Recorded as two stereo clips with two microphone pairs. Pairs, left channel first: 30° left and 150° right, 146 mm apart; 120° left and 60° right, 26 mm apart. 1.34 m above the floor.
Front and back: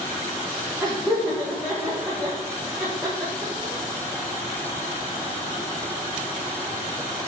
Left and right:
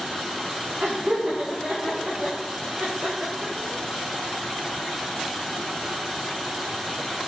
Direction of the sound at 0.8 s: 75° right.